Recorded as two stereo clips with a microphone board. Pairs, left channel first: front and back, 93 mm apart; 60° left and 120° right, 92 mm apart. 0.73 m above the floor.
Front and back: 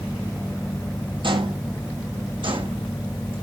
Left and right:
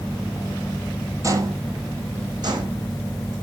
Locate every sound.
1.2 s footsteps: 170° right, 1.3 m; by 3.3 s 155° right, 3 m